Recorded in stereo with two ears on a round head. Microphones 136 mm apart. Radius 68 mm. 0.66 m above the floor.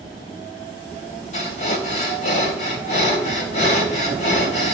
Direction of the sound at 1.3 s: 50° left (ahead or behind).